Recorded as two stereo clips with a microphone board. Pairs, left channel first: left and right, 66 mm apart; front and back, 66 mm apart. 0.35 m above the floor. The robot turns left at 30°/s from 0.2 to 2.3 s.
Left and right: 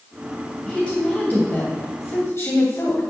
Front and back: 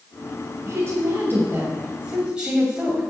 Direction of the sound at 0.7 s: 160° left.